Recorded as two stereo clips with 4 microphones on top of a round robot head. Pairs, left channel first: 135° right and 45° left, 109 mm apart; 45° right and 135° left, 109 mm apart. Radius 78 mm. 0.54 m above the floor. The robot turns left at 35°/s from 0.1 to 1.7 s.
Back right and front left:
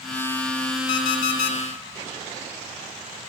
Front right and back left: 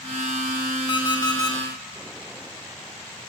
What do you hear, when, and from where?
0.9 s an alarm clock: 80° right, 1.7 m; by 1.6 s 105° right, 1.7 m